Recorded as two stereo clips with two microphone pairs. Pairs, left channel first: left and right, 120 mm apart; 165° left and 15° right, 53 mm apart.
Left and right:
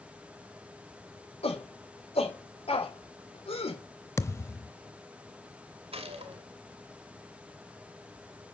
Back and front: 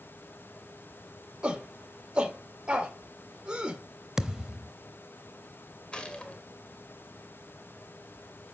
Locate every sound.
1.4 s a shout: 60° left, 2.5 m
4.2 s a thud: 55° left, 0.8 m
5.9 s a gunshot: 120° right, 2.5 m